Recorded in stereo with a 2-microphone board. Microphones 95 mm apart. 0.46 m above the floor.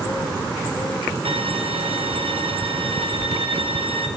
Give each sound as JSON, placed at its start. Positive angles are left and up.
{"t": 1.2, "sound": "a violin", "side_deg": -80, "distance_m": 2.0}